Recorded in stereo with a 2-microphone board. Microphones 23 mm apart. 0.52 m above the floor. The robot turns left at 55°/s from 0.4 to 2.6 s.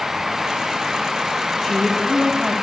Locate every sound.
1.6 s a man speaking: 5° left (ahead or behind), 1.2 m; by 2.5 s 10° right (ahead or behind), 1.2 m